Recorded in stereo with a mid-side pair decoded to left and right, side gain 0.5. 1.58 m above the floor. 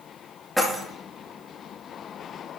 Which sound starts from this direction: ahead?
Keys jangling, at 0.6 s.